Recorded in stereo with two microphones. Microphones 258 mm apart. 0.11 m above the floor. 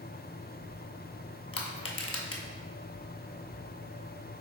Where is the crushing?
60° left (ahead or behind), 0.6 m.